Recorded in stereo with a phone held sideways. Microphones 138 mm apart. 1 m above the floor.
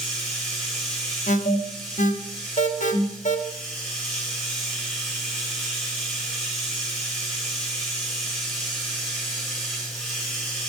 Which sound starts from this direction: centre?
Running water, at 0.0 s.